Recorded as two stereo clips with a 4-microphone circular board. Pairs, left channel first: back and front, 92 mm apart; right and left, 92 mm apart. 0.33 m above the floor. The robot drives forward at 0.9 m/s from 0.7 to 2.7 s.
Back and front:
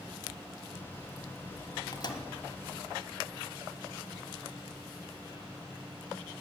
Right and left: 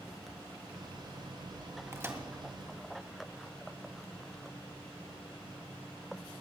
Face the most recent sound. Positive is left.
turn(degrees=160)